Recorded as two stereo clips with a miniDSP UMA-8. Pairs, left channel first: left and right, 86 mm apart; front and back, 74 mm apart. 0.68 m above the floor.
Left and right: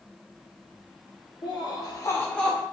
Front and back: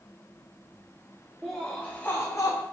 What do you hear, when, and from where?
1.4 s laughter: 90° left, 0.9 m; by 2.6 s 5° right, 0.7 m